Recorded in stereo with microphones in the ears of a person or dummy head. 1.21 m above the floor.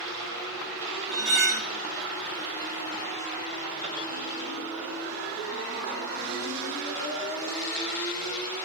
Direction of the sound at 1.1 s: 55° right (ahead or behind).